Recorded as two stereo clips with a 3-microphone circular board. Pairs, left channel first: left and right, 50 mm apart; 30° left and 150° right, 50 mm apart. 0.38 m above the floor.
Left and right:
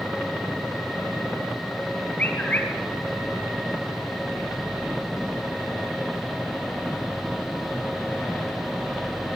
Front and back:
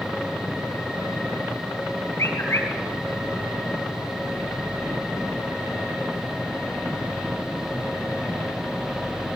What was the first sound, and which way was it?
A bird, 35° left.